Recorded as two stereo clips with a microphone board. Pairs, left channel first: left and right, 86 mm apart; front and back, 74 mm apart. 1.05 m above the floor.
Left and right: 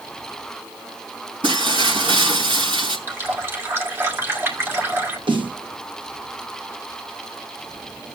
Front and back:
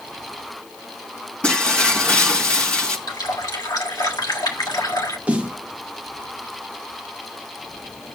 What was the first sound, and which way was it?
Breaking glass, 75° right.